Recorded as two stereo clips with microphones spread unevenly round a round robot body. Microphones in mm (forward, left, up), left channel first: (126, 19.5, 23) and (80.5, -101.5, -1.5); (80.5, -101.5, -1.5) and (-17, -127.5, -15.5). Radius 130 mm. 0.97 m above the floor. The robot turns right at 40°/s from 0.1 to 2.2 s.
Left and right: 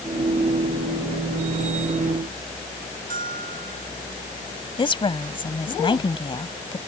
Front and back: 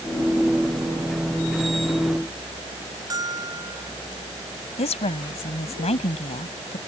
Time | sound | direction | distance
3.1 | a bell | 110° right | ?
4.8 | a woman speaking | 20° left | ?